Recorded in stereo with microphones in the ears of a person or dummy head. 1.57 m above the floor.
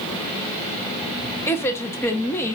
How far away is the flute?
No flute in this recording.